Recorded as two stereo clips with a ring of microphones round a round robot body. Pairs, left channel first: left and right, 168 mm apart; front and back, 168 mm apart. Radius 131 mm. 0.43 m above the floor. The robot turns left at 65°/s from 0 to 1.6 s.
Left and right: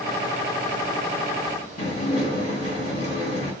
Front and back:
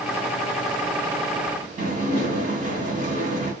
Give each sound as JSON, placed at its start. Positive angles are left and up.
{"t": 1.8, "sound": "dishes clattering", "azimuth_deg": 140, "distance_m": 1.6}